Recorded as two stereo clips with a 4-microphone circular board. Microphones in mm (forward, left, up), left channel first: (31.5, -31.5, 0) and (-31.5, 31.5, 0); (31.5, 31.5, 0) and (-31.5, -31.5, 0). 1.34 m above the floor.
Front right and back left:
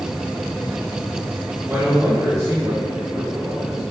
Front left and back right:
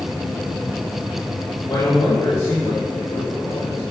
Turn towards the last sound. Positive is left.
turn(degrees=70)